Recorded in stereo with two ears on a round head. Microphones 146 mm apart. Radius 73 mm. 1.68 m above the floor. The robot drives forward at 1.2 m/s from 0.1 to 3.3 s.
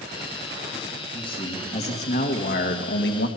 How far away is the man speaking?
About 3 m.